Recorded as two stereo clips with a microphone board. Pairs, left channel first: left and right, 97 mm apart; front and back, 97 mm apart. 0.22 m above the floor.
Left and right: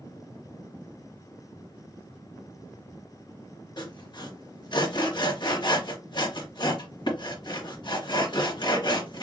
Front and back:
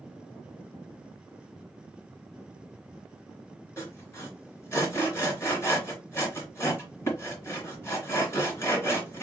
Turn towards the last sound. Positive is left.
turn(degrees=60)